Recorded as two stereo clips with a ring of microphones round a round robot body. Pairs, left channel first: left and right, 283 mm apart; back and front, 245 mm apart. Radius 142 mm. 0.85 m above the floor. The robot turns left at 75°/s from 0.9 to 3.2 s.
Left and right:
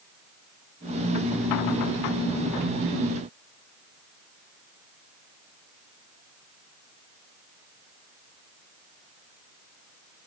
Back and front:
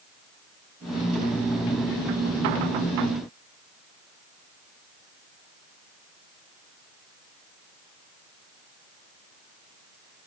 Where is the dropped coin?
No dropped coin in this recording.